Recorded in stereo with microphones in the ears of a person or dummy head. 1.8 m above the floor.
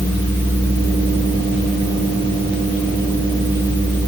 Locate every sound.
Only background noise.